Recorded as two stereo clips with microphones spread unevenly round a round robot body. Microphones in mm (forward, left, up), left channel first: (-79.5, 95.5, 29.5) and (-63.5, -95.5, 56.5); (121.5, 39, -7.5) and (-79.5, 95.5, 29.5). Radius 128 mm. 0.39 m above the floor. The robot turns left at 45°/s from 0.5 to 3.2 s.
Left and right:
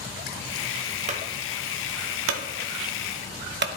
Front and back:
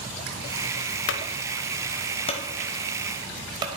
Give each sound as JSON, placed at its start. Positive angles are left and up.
{"t": 1.1, "sound": "a clunk", "azimuth_deg": -25, "distance_m": 0.8}